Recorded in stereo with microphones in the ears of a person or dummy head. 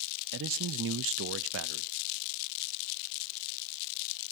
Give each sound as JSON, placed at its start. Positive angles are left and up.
{"t": 0.3, "sound": "a man speaking", "side_deg": -65, "distance_m": 0.7}